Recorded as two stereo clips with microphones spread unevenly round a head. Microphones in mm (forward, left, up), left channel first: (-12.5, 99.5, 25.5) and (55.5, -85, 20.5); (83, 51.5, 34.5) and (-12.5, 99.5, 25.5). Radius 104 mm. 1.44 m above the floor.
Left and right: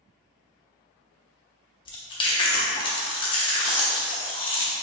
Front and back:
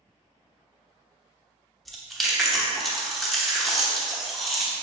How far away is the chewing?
About 0.9 m.